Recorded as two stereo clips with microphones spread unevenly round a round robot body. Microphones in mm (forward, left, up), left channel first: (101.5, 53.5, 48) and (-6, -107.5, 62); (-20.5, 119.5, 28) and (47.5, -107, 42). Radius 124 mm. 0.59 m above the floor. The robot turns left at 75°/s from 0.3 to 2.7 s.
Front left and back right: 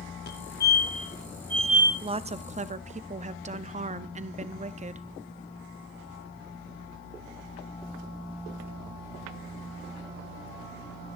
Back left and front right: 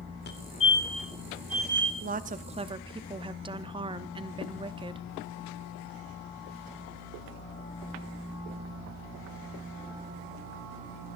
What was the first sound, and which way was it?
A fire alarm, 70° left.